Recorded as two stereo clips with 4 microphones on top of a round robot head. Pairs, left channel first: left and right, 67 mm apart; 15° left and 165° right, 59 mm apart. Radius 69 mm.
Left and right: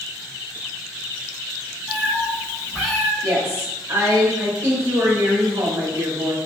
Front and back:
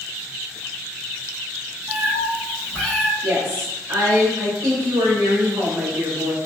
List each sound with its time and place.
1.9 s a cat meowing: 160° right, 1.0 m; by 3.1 s 75° left, 1.0 m
3.2 s a woman speaking: 140° right, 1.7 m